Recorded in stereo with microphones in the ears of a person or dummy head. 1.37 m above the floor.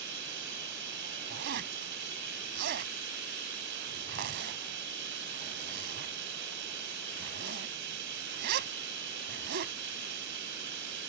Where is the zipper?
50° right (ahead or behind).